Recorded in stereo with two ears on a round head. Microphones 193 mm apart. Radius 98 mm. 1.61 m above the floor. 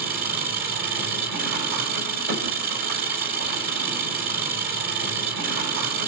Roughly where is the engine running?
Right.